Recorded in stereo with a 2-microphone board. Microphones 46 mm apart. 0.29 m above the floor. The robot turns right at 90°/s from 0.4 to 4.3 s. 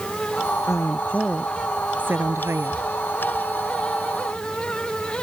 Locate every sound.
0.7 s a woman speaking: 105° left; by 2.8 s 65° right